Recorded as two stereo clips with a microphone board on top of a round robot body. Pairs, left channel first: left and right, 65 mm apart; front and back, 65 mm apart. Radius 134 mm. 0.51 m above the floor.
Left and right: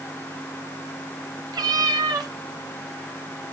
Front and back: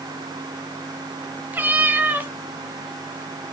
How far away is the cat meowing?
About 1.2 m.